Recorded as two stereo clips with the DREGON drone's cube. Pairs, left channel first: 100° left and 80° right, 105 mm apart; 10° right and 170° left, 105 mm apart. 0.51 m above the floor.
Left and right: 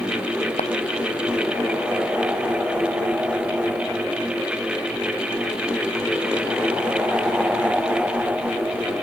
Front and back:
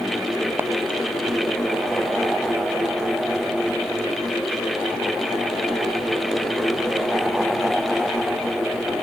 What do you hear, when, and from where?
0.6 s a clap: 100° left